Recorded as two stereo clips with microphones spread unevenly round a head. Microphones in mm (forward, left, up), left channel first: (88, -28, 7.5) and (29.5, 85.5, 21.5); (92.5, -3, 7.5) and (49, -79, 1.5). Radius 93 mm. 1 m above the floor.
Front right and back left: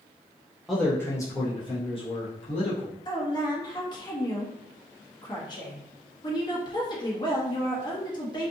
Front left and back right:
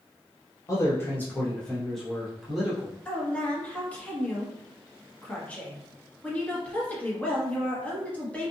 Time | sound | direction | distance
0.7 | a man speaking | 20° left | 0.6 m
3.0 | a woman speaking | 15° right | 1.2 m